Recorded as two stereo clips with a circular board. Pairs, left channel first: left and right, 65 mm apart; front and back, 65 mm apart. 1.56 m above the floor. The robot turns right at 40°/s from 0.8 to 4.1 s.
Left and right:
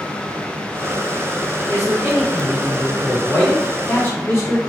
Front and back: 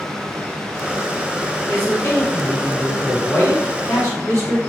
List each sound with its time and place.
1.7 s a man speaking: 55° right, 1.4 m; by 4.6 s 40° left, 1.4 m